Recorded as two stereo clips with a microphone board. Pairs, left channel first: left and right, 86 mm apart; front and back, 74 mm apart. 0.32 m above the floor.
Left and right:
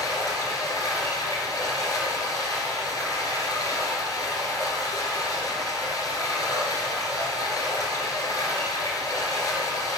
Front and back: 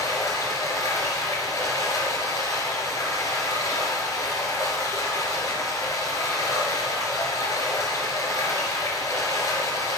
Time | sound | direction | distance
0.0 | running water | 45° left | 2.5 m